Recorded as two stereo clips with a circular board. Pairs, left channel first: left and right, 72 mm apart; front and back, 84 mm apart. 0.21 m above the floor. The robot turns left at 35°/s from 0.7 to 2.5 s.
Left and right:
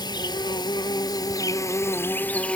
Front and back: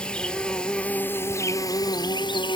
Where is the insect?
80° left, 0.9 m; by 2.6 s 15° left, 0.9 m.